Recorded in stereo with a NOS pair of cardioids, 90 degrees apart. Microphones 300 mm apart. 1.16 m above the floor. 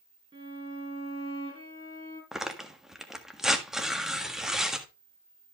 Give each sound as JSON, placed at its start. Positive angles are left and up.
{"t": 0.3, "sound": "a violin", "azimuth_deg": -15, "distance_m": 9.0}
{"t": 2.3, "sound": "tearing paper", "azimuth_deg": 0, "distance_m": 1.6}